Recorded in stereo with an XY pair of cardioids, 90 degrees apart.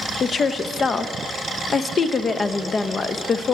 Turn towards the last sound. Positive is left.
turn(degrees=50)